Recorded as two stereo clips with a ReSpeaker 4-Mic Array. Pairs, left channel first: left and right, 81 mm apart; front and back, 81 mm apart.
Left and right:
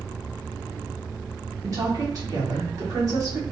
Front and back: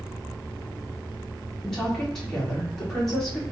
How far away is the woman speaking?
About 1.6 m.